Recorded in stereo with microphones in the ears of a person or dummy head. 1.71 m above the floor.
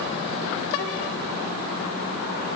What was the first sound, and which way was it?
Only background noise.